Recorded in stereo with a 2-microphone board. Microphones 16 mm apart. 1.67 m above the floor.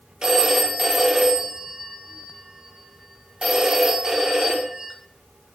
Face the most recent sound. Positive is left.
turn(degrees=-45)  # may be behind; listen again after turning